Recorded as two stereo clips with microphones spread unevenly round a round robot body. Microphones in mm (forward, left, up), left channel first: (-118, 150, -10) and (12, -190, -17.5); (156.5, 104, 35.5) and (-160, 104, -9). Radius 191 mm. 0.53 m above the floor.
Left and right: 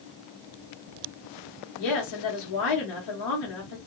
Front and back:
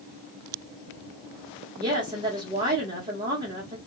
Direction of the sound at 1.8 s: 115° left.